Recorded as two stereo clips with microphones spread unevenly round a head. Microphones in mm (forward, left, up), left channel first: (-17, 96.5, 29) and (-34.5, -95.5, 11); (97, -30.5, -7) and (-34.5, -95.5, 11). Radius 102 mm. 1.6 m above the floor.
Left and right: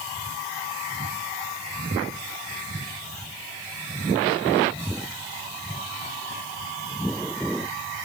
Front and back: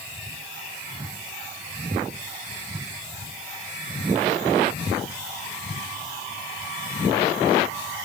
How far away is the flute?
No flute in this recording.